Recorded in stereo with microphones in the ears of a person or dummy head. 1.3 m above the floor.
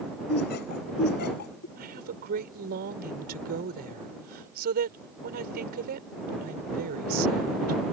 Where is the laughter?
55° left (ahead or behind).